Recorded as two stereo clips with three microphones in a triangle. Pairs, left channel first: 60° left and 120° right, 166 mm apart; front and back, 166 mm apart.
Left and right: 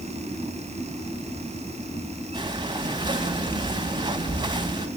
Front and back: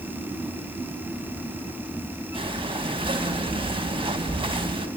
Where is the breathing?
155° right, 1.3 m.